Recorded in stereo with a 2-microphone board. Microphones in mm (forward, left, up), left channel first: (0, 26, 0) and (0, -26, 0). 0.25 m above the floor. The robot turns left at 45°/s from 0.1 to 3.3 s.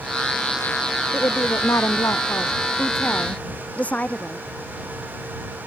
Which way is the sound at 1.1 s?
130° left.